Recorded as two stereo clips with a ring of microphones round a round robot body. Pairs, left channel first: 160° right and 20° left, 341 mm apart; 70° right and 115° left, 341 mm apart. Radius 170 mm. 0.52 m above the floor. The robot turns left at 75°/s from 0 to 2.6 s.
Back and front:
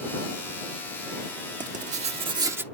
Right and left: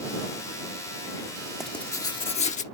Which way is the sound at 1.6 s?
25° left.